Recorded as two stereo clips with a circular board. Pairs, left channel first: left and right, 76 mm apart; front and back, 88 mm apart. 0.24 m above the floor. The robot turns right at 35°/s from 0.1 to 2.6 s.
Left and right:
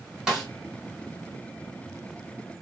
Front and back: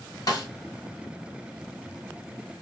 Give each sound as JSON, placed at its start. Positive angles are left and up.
{"t": 0.3, "sound": "a snare drum", "azimuth_deg": -10, "distance_m": 1.8}